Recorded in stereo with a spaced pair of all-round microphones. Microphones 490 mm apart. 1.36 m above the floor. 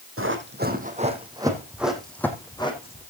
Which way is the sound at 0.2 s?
25° right (ahead or behind).